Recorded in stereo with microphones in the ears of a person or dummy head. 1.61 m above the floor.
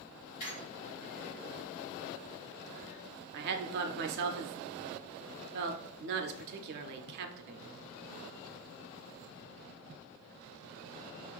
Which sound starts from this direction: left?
A squeak, at 0.4 s.